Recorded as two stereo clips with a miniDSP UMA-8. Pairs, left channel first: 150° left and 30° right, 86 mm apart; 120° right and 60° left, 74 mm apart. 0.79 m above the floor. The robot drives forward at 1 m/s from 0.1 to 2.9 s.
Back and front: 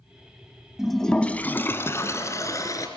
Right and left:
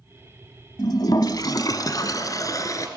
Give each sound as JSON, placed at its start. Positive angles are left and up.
{"t": 0.8, "sound": "a toilet flushing", "azimuth_deg": -115, "distance_m": 1.0}